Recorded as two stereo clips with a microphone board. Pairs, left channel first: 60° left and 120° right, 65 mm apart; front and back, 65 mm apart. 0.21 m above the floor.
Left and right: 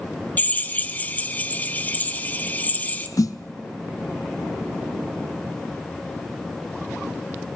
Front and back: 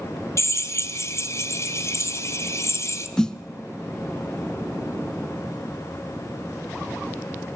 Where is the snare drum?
80° left, 0.7 m.